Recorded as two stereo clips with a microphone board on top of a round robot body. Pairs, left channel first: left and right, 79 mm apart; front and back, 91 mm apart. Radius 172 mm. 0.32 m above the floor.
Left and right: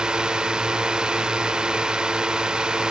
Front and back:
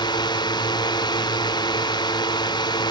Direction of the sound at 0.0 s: 15° right.